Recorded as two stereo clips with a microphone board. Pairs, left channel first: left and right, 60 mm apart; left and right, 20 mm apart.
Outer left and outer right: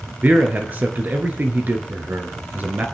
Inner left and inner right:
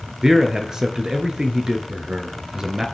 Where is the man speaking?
30° right (ahead or behind), 1.4 m.